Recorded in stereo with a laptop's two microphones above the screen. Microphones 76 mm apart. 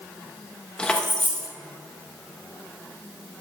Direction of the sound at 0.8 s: 10° left (ahead or behind).